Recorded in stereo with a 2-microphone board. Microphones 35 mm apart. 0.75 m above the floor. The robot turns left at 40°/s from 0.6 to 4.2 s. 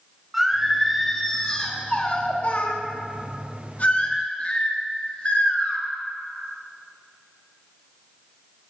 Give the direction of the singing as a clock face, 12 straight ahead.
6 o'clock.